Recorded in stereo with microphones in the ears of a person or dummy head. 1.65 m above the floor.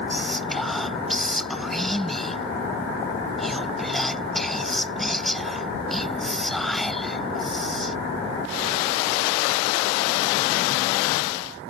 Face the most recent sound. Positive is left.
turn(degrees=0)  # may be behind; listen again after turning